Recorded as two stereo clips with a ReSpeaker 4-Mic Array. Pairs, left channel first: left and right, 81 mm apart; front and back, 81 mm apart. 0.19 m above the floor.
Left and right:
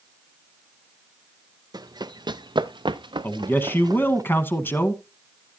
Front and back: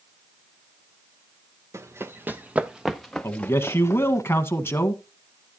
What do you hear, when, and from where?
1.7 s running footsteps: 125° right, 1.2 m; by 4.2 s 50° right, 1.1 m
3.2 s a man speaking: 40° left, 1.4 m